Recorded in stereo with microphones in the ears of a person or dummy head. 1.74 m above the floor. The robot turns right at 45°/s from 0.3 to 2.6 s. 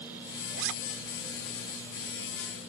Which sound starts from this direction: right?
A zipper, at 0.6 s.